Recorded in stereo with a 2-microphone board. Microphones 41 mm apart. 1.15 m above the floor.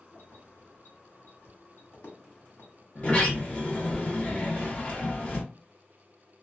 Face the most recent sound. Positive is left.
turn(degrees=35)  # may be behind; listen again after turning